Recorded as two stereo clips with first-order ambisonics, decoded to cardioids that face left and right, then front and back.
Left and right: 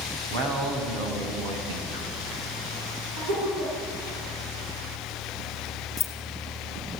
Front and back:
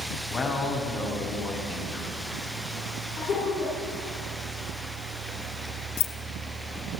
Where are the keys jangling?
20° left, 1.4 m.